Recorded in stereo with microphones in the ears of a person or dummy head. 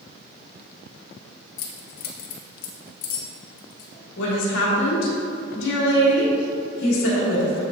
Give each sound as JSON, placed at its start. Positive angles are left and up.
{"t": 1.6, "sound": "keys jangling", "side_deg": 50, "distance_m": 0.6}
{"t": 4.2, "sound": "a woman speaking", "side_deg": 70, "distance_m": 1.2}